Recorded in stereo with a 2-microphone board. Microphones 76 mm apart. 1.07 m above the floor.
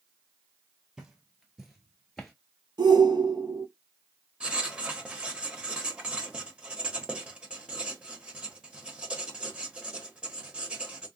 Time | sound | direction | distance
1.0 | footsteps | 10° right (ahead or behind) | 1.3 m
2.8 | a shout | 75° right (ahead or behind) | 0.9 m
4.4 | writing | 15° right (ahead or behind) | 0.8 m